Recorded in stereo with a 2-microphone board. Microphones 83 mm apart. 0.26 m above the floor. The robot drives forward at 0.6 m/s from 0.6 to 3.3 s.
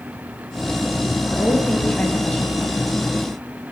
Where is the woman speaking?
15° left (ahead or behind), 4.5 m; by 2.6 s 10° left (ahead or behind), 5 m.